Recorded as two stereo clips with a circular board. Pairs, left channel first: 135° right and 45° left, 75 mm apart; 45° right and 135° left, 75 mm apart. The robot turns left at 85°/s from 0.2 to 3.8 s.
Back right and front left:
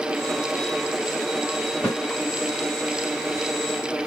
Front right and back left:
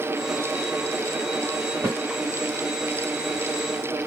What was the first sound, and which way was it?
A snare drum, 155° left.